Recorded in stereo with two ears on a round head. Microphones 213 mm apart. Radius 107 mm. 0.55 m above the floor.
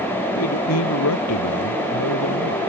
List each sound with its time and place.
0.3 s a man speaking: 75° left (ahead or behind)